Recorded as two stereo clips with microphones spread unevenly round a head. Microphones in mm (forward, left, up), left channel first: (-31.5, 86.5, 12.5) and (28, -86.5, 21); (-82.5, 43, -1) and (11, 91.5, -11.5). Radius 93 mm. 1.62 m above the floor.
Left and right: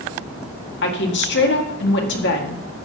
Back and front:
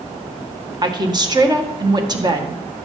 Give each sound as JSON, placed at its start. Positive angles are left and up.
{"t": 0.8, "sound": "a woman speaking", "azimuth_deg": 80, "distance_m": 1.9}